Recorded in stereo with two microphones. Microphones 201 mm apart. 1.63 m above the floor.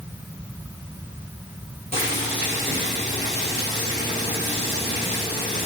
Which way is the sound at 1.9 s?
35° left (ahead or behind).